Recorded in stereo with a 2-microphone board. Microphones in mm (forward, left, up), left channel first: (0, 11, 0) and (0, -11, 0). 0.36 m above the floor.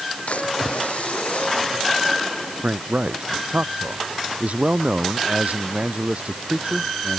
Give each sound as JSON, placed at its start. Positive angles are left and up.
{"t": 0.3, "sound": "a splash", "side_deg": 80}
{"t": 2.6, "sound": "a man speaking", "side_deg": -80}